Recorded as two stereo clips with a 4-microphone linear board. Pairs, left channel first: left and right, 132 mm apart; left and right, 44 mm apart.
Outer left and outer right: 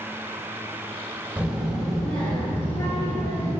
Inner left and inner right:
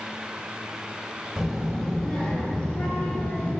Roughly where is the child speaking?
Centre.